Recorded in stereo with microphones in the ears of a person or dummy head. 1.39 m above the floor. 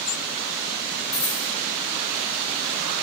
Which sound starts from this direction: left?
A dropped coin, at 1.1 s.